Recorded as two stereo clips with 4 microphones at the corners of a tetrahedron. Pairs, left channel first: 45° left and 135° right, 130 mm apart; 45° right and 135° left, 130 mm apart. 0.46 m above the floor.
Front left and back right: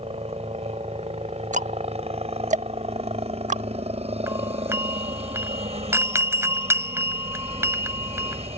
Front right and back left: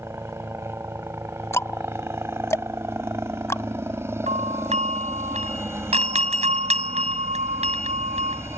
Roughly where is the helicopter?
Behind.